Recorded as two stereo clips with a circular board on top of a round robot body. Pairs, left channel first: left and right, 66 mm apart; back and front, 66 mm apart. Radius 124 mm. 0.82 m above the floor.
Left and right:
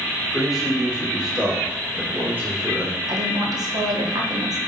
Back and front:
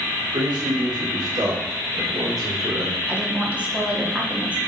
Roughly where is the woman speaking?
Right.